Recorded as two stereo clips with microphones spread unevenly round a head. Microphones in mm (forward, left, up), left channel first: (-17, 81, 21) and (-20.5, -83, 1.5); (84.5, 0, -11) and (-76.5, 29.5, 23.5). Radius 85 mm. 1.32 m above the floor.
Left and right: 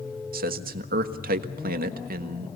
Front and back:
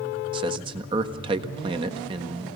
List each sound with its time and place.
0.3 s a man speaking: 130° right, 1.5 m